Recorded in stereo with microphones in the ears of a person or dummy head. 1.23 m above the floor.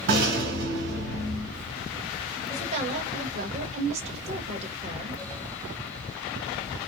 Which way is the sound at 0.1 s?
55° right (ahead or behind).